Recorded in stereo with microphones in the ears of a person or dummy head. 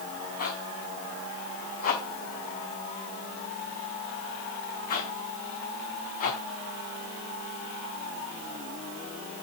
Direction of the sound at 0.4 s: 50° left (ahead or behind).